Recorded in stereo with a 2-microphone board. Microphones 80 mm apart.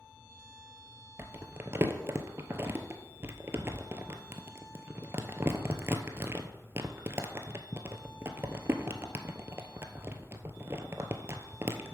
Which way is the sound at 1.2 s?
35° right (ahead or behind).